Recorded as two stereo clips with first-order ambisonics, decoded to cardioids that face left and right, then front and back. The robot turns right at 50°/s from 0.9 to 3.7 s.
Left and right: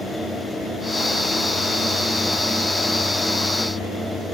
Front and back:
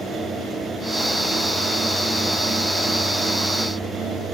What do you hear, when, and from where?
Only background noise.